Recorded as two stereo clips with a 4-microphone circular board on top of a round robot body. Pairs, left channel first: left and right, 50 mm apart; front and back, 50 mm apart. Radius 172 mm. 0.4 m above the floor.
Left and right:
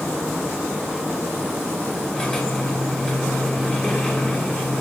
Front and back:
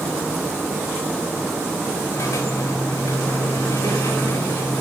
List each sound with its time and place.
2.1 s a squeak: 15° left, 3.5 m